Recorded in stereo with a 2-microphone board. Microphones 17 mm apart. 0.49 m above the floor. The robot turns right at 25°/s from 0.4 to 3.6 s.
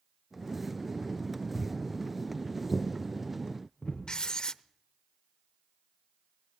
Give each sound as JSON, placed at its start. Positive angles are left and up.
{"t": 1.5, "sound": "footsteps", "side_deg": 75, "distance_m": 5.0}
{"t": 4.1, "sound": "writing", "side_deg": 50, "distance_m": 0.5}